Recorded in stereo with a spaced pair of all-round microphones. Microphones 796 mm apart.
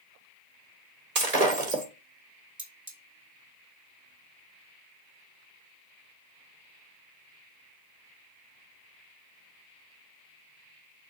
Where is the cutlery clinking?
25° right (ahead or behind), 2.5 m.